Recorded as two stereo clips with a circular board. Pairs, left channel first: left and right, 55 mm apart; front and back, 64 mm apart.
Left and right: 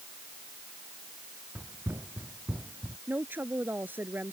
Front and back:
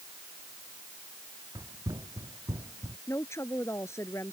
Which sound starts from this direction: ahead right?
A woman speaking, at 3.1 s.